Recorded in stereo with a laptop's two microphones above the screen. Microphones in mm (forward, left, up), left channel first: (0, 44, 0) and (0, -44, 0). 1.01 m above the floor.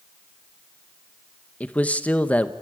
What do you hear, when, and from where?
1.6 s a man speaking: 15° left (ahead or behind), 1.0 m